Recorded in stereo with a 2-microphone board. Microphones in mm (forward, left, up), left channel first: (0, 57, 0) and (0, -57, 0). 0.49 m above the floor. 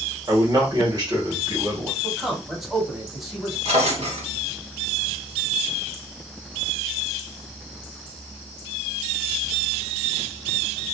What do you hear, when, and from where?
0.3 s a man speaking: 35° right (ahead or behind), 2 m
2.0 s a man speaking: 5° right (ahead or behind), 1.7 m
3.6 s a drawer: 60° right (ahead or behind), 2.5 m